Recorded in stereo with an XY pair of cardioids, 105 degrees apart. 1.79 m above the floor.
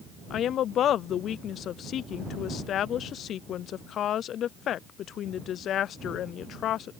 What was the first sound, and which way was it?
A woman speaking, 65° left.